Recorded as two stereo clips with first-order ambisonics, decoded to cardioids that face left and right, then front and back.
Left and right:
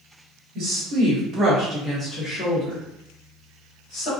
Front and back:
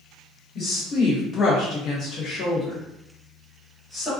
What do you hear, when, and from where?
0.6 s a woman speaking: 60° right, 1.0 m; by 4.1 s 85° left, 1.4 m